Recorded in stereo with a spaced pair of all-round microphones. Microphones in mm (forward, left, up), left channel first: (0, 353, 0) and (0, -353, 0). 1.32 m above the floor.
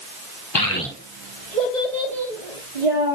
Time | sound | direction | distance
0.6 | a child speaking | 40° left (ahead or behind) | 0.7 m